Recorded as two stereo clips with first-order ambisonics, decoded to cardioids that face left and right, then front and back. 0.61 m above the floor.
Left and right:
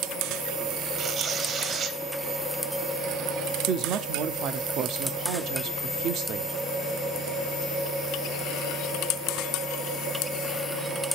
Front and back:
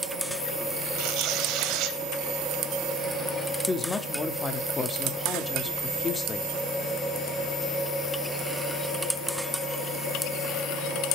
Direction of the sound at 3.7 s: 65° right.